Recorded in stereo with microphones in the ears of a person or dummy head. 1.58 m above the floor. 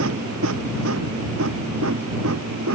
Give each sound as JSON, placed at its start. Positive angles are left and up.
{"t": 0.0, "sound": "a machine running", "side_deg": -75}